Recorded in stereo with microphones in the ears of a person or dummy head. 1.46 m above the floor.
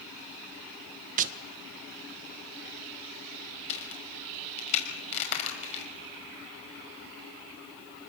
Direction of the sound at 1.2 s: 45° right (ahead or behind).